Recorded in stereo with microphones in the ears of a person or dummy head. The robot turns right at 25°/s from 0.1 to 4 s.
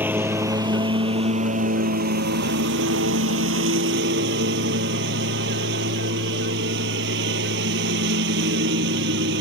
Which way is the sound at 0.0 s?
170° right.